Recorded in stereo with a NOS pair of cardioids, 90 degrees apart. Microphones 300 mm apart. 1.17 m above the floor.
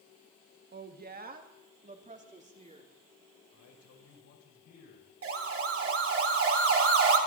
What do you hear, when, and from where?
0.7 s a woman speaking: 35° right, 1.8 m; by 2.9 s 20° right, 3.5 m
3.5 s a man speaking: 65° left, 6 m
5.2 s a siren: 50° right, 3 m